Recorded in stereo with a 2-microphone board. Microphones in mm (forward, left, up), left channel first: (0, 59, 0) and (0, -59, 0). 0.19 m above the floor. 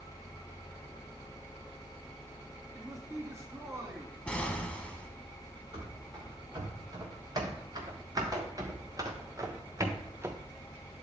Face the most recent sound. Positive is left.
turn(degrees=-20)  # may be behind; listen again after turning